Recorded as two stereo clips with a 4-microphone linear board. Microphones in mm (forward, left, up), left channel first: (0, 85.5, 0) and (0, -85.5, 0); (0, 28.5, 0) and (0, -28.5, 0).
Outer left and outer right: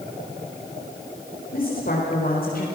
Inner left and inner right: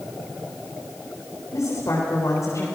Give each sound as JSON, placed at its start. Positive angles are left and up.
{"t": 1.5, "sound": "a woman speaking", "side_deg": 65, "distance_m": 4.5}